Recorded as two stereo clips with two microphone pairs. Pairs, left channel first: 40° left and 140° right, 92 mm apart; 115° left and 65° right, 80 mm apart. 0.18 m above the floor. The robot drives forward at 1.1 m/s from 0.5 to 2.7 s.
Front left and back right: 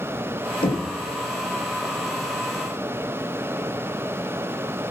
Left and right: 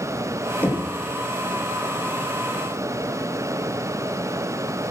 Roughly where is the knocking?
Ahead left.